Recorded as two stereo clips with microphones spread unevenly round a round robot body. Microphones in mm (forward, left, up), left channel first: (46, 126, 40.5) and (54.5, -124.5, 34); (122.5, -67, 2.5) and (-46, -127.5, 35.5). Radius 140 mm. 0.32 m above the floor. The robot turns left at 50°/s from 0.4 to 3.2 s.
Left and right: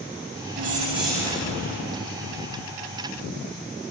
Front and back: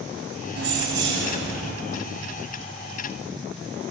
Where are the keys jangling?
135° right, 1.3 m; by 1.7 s 165° left, 1.3 m.